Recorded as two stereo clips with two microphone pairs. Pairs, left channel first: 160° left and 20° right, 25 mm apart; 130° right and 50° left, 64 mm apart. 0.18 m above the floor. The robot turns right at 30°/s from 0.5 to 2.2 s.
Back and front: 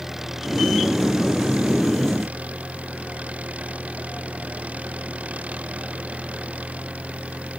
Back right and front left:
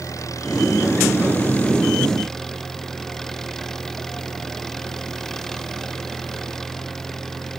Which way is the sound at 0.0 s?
95° right.